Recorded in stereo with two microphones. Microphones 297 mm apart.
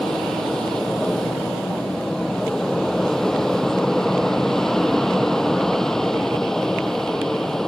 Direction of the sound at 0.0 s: Centre (ahead or behind).